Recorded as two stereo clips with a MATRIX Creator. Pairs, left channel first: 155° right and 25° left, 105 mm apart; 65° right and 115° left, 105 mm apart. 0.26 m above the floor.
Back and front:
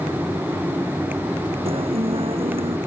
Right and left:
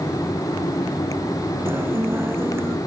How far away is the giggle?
I don't hear a giggle.